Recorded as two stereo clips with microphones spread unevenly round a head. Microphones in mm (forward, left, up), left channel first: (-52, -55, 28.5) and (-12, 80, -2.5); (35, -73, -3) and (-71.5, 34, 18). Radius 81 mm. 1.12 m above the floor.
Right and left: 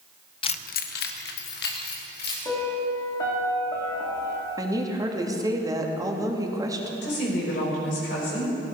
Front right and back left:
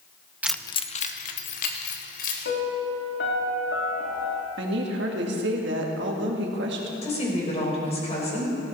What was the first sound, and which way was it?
Keys jangling, 150° right.